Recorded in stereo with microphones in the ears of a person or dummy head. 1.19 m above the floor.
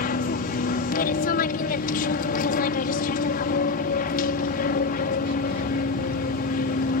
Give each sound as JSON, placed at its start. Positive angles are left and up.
{"t": 0.0, "sound": "an aircraft", "side_deg": 45}